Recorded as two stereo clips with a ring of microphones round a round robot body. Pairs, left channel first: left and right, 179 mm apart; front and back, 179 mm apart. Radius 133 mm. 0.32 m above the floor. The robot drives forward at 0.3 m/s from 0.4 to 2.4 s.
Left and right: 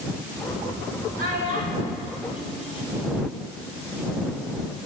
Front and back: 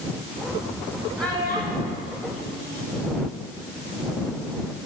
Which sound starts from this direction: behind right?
A child speaking, at 1.2 s.